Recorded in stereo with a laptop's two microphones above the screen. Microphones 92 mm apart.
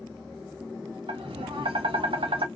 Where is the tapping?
80° right, 1.0 m.